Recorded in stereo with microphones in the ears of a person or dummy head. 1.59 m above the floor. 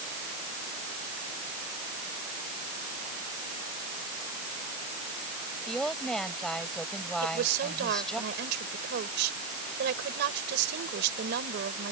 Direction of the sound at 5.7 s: 5° left (ahead or behind).